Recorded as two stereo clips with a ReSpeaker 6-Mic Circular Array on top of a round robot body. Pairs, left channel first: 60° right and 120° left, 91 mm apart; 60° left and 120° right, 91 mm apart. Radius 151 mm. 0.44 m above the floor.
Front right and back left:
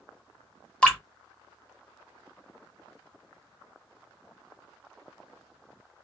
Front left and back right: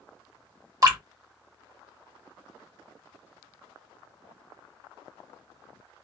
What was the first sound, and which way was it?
Dripping, 135° right.